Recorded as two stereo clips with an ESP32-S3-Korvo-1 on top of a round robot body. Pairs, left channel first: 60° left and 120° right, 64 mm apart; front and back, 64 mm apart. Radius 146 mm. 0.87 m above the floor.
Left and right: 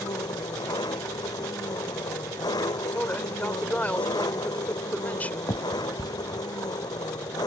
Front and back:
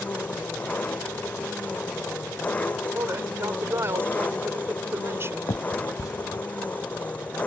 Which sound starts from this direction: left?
An engine running, at 0.0 s.